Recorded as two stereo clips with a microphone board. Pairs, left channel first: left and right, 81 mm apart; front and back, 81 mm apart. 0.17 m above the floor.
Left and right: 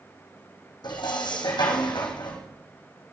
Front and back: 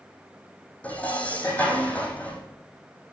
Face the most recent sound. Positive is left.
turn(degrees=75)